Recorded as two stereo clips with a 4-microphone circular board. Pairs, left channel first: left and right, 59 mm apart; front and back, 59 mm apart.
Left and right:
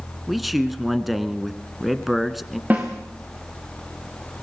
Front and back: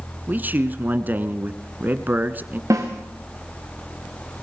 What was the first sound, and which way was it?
A man speaking, 175° right.